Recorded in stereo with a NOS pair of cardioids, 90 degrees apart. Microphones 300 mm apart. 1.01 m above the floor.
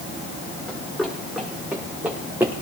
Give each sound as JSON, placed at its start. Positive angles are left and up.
{"t": 0.7, "sound": "running footsteps", "azimuth_deg": 0, "distance_m": 6.5}